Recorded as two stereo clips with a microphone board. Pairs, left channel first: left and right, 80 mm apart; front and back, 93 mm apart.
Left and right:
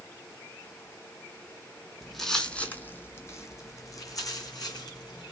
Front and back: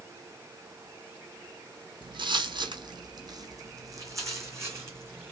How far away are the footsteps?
About 1.1 m.